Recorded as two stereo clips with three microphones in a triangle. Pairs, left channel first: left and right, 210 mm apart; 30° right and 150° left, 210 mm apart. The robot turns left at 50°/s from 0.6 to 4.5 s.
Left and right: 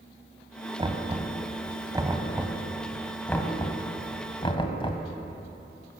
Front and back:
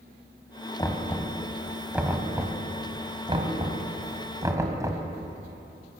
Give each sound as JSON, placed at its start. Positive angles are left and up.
{"t": 0.8, "sound": "knocking", "azimuth_deg": -75, "distance_m": 1.3}